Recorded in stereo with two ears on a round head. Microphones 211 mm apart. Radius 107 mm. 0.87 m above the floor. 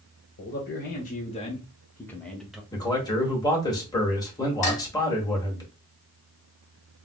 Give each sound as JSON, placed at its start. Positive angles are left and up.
{"t": 0.4, "sound": "a man speaking", "side_deg": 45, "distance_m": 1.1}
{"t": 2.7, "sound": "a man speaking", "side_deg": 15, "distance_m": 1.4}
{"t": 4.6, "sound": "dishes clattering", "side_deg": 35, "distance_m": 1.3}